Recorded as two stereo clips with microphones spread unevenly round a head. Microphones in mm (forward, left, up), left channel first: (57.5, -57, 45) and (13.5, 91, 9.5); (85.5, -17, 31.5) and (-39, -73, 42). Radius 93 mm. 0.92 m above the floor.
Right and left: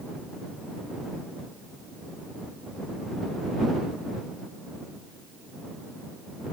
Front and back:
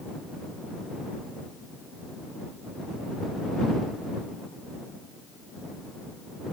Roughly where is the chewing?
I don't hear chewing.